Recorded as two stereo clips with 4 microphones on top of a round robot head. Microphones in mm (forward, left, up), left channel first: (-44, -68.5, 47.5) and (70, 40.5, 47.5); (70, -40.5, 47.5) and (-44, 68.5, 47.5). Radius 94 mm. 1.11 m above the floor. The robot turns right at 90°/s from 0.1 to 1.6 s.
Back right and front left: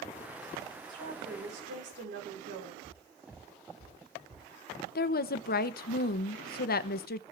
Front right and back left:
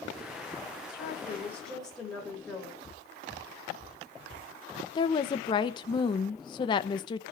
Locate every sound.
0.9 s a woman speaking: 20° right, 4.5 m; by 2.7 s 45° left, 4.5 m
2.8 s footsteps: 30° left, 3 m; by 4.5 s 60° left, 3 m
5.0 s a woman speaking: 105° right, 0.7 m